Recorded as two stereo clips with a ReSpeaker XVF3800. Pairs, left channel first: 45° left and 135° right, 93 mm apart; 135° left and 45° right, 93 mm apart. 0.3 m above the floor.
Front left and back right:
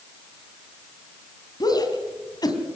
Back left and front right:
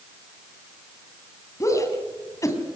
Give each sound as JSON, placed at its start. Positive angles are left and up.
{"t": 1.6, "sound": "a shout", "azimuth_deg": 85, "distance_m": 3.0}